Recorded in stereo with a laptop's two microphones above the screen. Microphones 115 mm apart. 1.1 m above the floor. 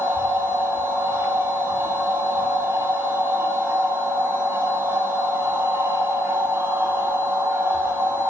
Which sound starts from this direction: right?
A machine running, at 0.0 s.